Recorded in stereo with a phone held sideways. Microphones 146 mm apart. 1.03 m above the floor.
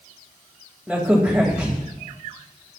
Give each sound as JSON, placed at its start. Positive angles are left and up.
{"t": 0.9, "sound": "a crack", "side_deg": -5, "distance_m": 2.5}